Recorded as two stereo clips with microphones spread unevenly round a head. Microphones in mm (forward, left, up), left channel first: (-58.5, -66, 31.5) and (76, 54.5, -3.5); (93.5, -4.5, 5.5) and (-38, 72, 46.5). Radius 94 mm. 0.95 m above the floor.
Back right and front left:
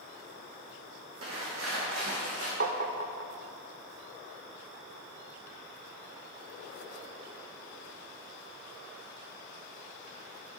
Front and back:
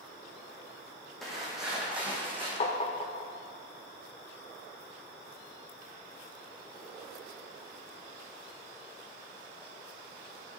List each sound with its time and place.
1.2 s footsteps: 60° left, 3 m; by 2.5 s 80° left, 3.5 m
2.6 s tapping: 20° left, 0.7 m